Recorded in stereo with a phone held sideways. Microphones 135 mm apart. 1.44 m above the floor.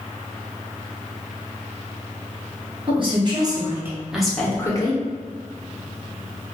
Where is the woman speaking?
40° right (ahead or behind), 1.2 m; by 5.0 s 30° left (ahead or behind), 0.8 m.